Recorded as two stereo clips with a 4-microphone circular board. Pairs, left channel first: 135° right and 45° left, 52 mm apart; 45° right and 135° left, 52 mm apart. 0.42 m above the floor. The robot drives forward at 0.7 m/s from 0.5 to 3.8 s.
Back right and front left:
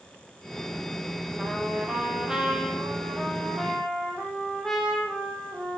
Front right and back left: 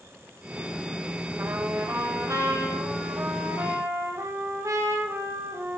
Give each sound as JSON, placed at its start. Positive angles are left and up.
{"t": 1.4, "sound": "a trumpet", "azimuth_deg": 105, "distance_m": 2.5}